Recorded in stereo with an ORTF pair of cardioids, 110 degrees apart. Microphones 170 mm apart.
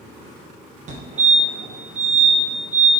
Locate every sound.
0.9 s a fire alarm: 45° right, 2 m